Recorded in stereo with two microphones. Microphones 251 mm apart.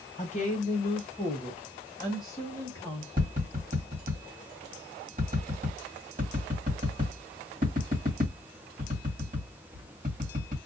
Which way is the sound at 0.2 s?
30° left (ahead or behind).